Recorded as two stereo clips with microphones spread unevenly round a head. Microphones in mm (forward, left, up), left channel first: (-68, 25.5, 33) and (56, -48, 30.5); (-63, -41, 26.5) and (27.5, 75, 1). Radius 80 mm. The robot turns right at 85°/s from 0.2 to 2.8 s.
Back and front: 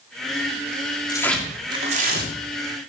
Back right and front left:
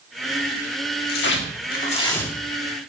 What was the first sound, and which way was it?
Tearing paper, 145° right.